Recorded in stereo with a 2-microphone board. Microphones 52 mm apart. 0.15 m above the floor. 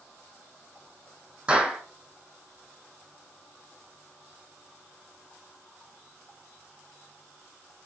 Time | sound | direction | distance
1.5 | a clap | 20° right (ahead or behind) | 5.5 m